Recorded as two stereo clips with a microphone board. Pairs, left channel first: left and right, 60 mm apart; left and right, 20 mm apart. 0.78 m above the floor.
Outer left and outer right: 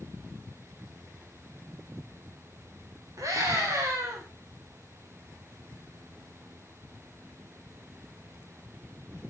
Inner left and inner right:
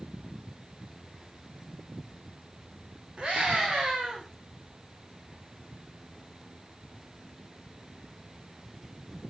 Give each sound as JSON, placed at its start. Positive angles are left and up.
{"t": 3.2, "sound": "a scream", "side_deg": -65, "distance_m": 3.0}